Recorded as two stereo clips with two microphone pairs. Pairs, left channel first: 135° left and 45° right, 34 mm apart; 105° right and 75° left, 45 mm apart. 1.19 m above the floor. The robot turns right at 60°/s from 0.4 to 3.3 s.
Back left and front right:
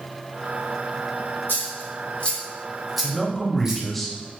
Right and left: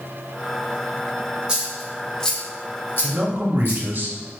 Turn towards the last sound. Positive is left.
turn(degrees=55)